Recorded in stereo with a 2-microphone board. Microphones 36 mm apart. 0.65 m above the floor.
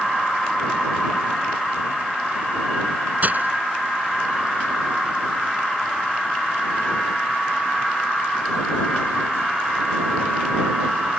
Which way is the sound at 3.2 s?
50° right (ahead or behind).